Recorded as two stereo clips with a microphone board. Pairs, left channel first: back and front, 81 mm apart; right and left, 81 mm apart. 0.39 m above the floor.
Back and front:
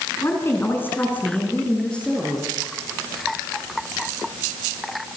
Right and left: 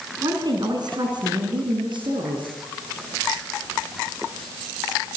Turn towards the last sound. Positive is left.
turn(degrees=100)